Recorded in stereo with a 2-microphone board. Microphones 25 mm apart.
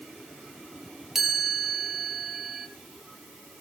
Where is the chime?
15° right (ahead or behind), 2.5 m.